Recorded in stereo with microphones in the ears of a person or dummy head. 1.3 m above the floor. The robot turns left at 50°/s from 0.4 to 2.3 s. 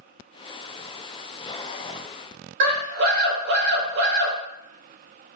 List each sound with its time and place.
2.6 s a scream: 60° right (ahead or behind), 1.6 m